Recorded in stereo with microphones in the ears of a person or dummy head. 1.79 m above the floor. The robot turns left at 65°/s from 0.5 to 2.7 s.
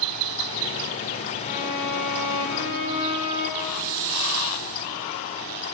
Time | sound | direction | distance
1.4 | a violin | 145° left | 2.5 m
3.6 | a hiss | 50° right (ahead or behind) | 1.9 m